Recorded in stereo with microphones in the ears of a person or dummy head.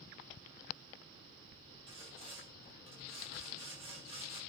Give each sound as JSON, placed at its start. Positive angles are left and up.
{"t": 1.9, "sound": "sawing", "side_deg": -25, "distance_m": 6.0}